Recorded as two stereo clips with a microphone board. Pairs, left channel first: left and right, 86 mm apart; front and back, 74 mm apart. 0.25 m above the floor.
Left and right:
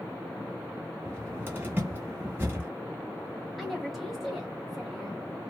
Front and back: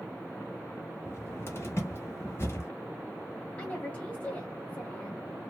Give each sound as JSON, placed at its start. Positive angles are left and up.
{"t": 1.1, "sound": "a cupboard door", "azimuth_deg": -35, "distance_m": 1.2}
{"t": 3.6, "sound": "a woman speaking", "azimuth_deg": 0, "distance_m": 1.0}